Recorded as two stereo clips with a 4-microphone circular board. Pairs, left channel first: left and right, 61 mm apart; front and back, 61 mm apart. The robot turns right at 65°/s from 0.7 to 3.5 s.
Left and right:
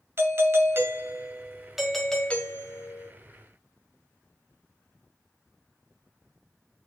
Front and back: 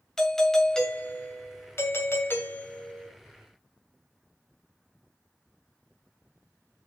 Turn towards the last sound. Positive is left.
turn(degrees=105)